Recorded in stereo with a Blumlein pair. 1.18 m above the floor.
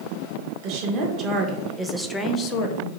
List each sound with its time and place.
0.6 s a woman speaking: 45° right, 1.0 m; by 2.9 s 50° left, 0.5 m